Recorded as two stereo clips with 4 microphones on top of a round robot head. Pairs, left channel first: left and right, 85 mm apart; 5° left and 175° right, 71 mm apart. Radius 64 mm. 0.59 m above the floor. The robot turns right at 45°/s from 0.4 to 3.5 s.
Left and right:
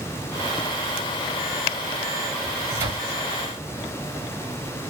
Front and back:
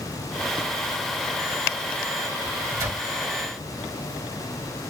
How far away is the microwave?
About 1.4 m.